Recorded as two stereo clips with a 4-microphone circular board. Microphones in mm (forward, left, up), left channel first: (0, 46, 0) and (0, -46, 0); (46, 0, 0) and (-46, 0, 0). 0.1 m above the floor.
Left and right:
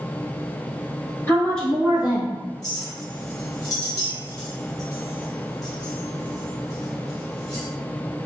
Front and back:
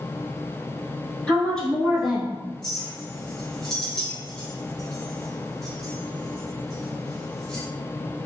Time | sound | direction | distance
1.3 | a woman speaking | 65° left | 1.1 m
2.6 | a clink | 85° left | 1.3 m